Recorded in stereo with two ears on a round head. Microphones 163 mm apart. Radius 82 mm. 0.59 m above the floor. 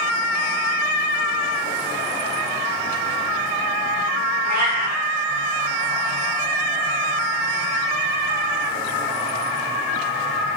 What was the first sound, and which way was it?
A cat meowing, 55° right (ahead or behind).